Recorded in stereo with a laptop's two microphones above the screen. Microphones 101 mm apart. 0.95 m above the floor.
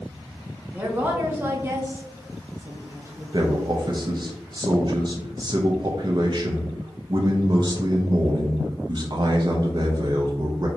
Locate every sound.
0.7 s a woman speaking: 15° right (ahead or behind), 1.2 m
3.3 s a man speaking: 45° right (ahead or behind), 0.5 m